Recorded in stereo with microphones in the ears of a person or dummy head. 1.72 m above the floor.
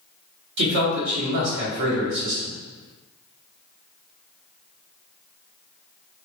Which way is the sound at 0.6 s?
65° right (ahead or behind).